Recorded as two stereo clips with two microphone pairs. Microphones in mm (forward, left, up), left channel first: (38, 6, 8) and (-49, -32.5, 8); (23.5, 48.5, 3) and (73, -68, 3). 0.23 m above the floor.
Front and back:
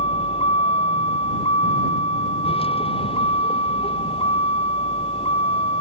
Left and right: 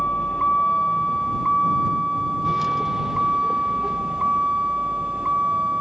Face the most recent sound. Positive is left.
turn(degrees=15)